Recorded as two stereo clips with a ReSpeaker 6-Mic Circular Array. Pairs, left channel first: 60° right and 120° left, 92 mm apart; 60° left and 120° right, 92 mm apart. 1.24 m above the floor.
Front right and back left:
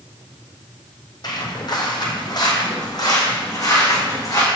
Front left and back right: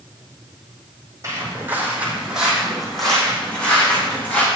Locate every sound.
1.2 s footsteps: 70° right, 1.8 m; by 4.5 s 5° right, 3 m